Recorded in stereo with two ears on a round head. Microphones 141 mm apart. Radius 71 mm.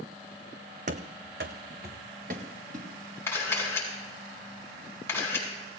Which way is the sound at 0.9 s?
55° right (ahead or behind).